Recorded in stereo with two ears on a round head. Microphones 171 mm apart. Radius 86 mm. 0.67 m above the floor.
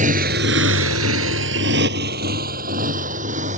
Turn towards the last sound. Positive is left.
turn(degrees=-40)  # may be behind; listen again after turning